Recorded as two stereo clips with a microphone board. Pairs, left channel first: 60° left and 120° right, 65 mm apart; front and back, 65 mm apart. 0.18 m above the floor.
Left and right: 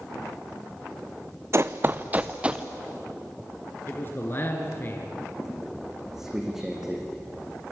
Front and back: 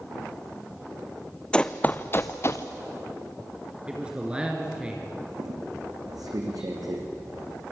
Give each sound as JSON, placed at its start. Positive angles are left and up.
{"t": 1.5, "sound": "running footsteps", "azimuth_deg": -75, "distance_m": 0.8}
{"t": 3.9, "sound": "a man speaking", "azimuth_deg": 110, "distance_m": 2.5}
{"t": 5.4, "sound": "a squeak", "azimuth_deg": 155, "distance_m": 3.5}